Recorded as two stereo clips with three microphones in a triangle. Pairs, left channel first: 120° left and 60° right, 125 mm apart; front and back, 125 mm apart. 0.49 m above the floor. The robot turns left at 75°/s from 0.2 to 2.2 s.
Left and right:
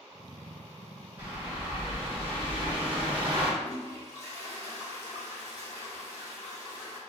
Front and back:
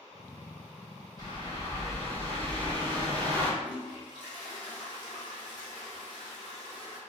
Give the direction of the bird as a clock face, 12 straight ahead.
12 o'clock.